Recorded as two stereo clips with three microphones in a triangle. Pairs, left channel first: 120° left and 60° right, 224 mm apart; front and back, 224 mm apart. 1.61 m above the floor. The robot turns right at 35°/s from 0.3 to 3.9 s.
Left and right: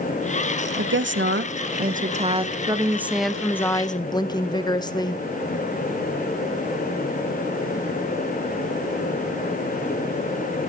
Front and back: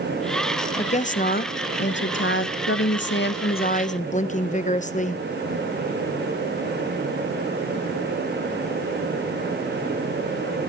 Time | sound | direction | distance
0.8 | a woman speaking | 60° right | 1.0 m